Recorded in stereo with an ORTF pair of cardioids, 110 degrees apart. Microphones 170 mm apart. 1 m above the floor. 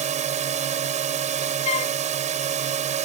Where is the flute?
40° left.